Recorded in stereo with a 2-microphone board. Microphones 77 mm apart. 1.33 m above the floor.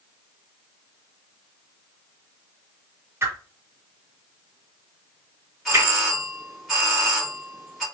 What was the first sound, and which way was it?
A whoosh, 35° right (ahead or behind).